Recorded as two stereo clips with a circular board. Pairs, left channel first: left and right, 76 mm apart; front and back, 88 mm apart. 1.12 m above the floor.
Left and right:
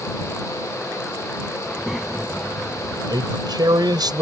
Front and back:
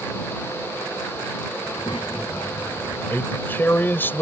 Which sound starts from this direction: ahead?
A child speaking, at 1.6 s.